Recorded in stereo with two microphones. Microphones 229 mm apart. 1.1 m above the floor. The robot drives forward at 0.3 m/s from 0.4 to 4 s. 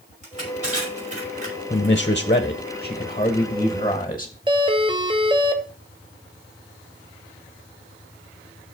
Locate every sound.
0.2 s crushing: 35° right (ahead or behind), 5.5 m
1.7 s a man speaking: 35° left (ahead or behind), 0.7 m; by 4.3 s 20° left (ahead or behind), 1.3 m
4.5 s a doorbell: 20° right (ahead or behind), 1.0 m